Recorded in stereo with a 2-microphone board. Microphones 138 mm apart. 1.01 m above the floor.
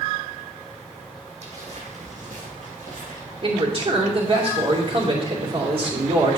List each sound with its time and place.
1.4 s footsteps: 55° right (ahead or behind), 3 m; by 3.2 s 70° right (ahead or behind), 3.5 m
3.4 s a man speaking: 45° right (ahead or behind), 2.5 m